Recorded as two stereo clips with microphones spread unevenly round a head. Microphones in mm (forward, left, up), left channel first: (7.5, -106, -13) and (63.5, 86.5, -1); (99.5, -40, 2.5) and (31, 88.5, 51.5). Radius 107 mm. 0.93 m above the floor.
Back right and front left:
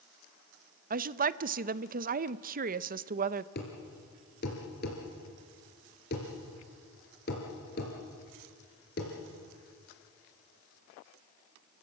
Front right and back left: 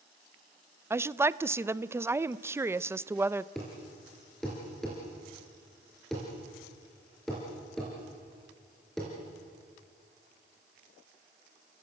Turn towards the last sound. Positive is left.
turn(degrees=-155)